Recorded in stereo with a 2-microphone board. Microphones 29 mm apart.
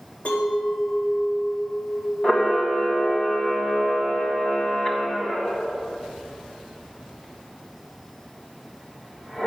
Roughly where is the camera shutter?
Left.